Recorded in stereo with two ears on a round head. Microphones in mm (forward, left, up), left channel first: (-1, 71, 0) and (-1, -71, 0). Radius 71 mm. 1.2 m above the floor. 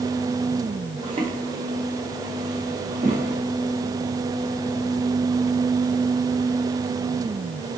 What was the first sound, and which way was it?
Footsteps, 30° right (ahead or behind).